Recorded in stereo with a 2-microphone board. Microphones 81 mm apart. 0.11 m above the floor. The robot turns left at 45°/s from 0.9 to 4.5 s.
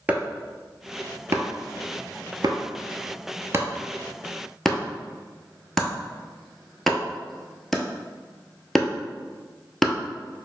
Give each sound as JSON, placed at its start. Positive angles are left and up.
{"t": 0.1, "sound": "chopping", "side_deg": -15, "distance_m": 0.6}